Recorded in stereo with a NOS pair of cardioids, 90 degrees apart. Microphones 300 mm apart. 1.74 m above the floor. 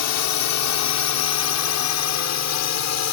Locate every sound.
0.0 s a drone: 70° left; by 3.1 s 60° left